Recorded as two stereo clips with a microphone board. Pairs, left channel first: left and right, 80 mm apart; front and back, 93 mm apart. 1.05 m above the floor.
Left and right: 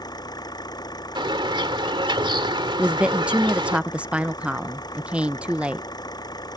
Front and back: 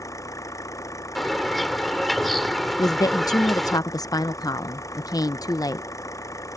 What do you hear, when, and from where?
0.0 s an engine running: 55° left
1.1 s a bird: 90° right
2.8 s a woman speaking: 20° right